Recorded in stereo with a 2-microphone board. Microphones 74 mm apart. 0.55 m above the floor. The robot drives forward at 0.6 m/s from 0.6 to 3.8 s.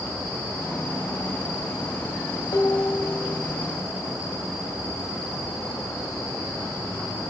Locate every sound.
2.5 s dishes clattering: 75° left (ahead or behind), 2 m